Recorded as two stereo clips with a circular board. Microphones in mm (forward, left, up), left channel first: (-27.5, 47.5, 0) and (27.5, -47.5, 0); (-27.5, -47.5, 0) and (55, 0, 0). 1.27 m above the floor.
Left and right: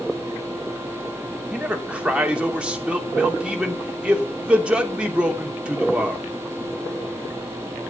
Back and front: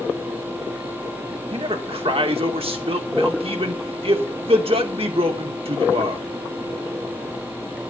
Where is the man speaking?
20° left, 3 m.